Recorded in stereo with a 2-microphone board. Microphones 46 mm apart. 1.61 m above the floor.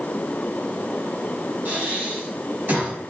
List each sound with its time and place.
1.6 s breathing: 50° right (ahead or behind), 2.5 m